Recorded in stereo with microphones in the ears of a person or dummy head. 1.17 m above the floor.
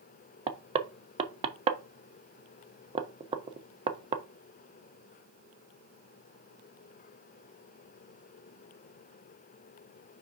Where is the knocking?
25° right (ahead or behind), 0.8 m.